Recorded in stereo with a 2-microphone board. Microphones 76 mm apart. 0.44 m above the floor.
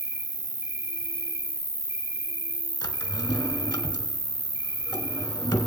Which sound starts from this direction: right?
An insect, at 0.0 s.